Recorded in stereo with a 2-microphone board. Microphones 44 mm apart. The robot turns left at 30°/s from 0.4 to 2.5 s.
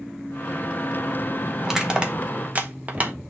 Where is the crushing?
10° right (ahead or behind), 1.4 m; by 3.1 s 35° right (ahead or behind), 1.4 m.